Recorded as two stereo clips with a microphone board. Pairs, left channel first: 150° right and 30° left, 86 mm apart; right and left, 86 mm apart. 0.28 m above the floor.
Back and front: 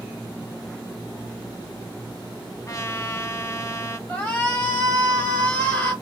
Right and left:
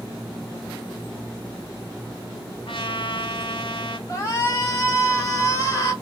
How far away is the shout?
About 1.7 m.